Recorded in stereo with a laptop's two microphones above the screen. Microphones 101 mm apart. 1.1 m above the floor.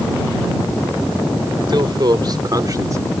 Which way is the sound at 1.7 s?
50° right (ahead or behind).